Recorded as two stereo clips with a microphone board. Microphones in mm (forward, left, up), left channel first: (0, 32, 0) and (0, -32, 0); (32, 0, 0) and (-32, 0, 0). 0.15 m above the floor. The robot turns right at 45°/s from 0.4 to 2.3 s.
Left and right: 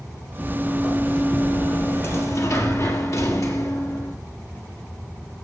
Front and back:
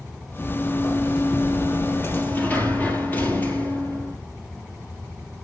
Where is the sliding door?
25° right, 3.5 m; by 4.2 s 60° left, 3.5 m.